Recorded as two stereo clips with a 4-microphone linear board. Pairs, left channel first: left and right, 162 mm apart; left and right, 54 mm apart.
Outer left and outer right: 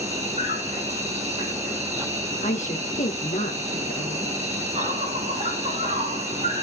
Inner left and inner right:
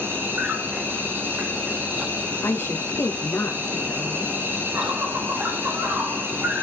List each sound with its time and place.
0.0 s an insect: 40° right (ahead or behind), 3.5 m
2.4 s a woman speaking: 50° left (ahead or behind), 2.5 m